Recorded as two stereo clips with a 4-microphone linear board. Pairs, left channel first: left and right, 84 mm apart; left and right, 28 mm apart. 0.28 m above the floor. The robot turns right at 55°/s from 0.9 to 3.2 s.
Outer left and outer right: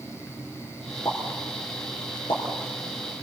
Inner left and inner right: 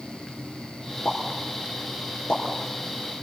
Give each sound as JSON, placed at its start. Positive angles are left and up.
{"t": 1.1, "sound": "a pop", "side_deg": 40, "distance_m": 5.0}